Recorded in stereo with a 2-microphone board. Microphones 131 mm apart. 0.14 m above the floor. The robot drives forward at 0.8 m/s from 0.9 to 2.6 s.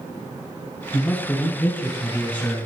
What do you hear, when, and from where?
0.9 s a man speaking: 10° left (ahead or behind), 1.4 m